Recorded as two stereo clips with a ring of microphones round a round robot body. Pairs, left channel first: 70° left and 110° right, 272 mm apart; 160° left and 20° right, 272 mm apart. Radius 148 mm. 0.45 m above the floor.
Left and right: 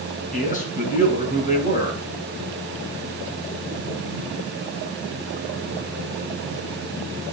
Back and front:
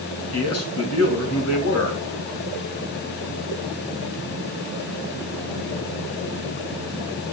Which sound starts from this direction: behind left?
A man speaking, at 0.3 s.